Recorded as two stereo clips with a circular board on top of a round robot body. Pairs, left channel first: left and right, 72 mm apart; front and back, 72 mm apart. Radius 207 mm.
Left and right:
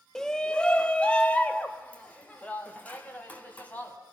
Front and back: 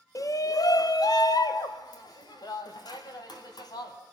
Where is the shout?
10° left, 1.1 m; by 4.0 s 25° left, 5 m.